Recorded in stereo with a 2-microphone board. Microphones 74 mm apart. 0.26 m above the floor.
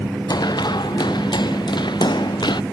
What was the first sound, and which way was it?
Running footsteps, 70° left (ahead or behind).